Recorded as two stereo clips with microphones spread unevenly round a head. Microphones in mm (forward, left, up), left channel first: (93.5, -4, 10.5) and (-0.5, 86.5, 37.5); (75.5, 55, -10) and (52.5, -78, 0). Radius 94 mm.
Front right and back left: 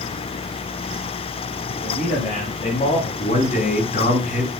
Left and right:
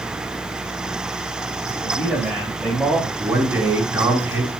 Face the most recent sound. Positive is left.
turn(degrees=-20)